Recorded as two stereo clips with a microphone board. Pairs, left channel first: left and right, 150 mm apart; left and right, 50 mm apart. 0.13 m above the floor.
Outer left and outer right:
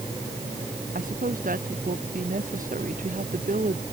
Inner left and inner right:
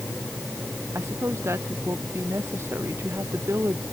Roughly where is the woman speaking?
Right.